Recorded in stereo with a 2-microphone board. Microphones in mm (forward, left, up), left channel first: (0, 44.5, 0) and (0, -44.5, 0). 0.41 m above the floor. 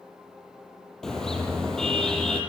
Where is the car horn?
5° left (ahead or behind), 6.5 m.